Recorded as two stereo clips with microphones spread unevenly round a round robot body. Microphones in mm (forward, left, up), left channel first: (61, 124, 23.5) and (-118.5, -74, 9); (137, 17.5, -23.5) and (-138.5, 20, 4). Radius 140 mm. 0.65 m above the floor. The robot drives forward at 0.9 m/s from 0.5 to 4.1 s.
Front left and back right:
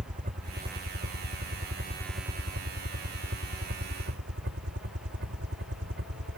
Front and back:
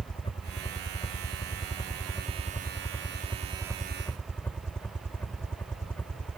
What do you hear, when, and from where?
0.0 s a helicopter: 70° right; by 6.4 s 85° right